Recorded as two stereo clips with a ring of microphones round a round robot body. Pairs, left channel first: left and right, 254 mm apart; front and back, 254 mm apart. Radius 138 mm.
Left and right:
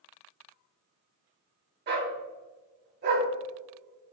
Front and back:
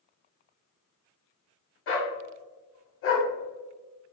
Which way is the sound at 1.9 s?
40° right.